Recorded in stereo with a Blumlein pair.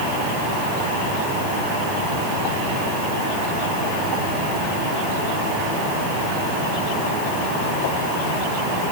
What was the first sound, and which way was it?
Only background noise.